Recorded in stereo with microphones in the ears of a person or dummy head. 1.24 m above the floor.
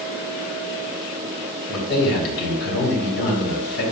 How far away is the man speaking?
About 3 m.